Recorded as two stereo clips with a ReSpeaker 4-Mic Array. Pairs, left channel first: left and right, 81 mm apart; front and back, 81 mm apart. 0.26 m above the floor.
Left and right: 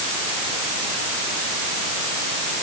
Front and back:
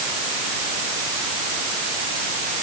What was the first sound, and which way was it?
Only background noise.